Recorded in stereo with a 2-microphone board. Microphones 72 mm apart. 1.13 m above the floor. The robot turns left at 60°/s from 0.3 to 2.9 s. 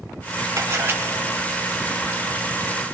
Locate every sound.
0.6 s a camera shutter: 50° right (ahead or behind), 2 m; by 1.0 s 25° right (ahead or behind), 2 m